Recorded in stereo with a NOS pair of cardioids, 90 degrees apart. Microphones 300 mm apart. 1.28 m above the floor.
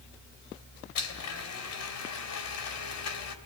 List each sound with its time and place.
0.9 s a blender: 70° left, 3.5 m